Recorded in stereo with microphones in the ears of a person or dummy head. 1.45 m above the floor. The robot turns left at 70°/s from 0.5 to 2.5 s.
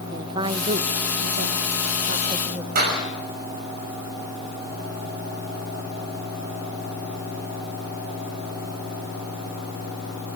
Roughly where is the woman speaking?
Right.